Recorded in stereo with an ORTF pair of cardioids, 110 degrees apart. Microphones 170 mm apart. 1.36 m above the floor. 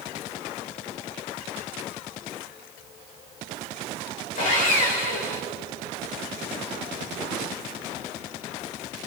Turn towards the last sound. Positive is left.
turn(degrees=50)